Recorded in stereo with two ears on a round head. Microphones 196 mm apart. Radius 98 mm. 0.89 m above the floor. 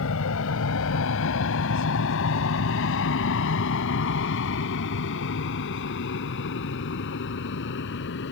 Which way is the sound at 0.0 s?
65° left (ahead or behind).